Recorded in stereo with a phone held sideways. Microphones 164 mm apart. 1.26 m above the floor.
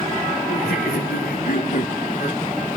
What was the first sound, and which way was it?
Laughter, 70° left (ahead or behind).